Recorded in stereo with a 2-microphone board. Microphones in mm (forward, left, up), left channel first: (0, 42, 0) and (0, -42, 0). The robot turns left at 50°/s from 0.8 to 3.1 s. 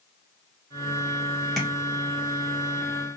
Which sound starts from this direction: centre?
Tapping, at 1.6 s.